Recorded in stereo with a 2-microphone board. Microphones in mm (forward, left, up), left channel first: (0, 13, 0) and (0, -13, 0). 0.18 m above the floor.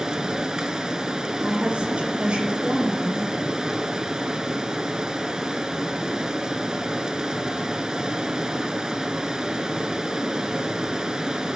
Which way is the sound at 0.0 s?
30° right (ahead or behind).